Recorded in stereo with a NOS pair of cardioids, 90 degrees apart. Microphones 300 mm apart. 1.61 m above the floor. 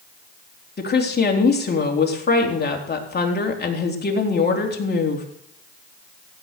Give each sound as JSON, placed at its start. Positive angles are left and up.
{"t": 0.8, "sound": "a woman speaking", "azimuth_deg": 35, "distance_m": 3.5}